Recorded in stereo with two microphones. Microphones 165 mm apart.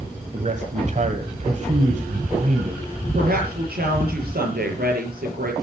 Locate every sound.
0.3 s a man speaking: 45° right (ahead or behind), 1.6 m
3.1 s a woman speaking: 65° right (ahead or behind), 6.5 m